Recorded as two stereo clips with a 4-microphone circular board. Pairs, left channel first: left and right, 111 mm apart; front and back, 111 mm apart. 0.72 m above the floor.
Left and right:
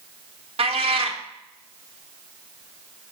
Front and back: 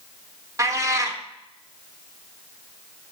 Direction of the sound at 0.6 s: 120° right.